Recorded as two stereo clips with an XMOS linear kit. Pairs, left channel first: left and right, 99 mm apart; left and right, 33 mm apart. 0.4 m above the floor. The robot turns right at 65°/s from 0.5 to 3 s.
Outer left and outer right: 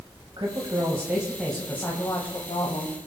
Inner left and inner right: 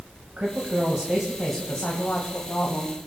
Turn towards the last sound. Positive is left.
turn(degrees=105)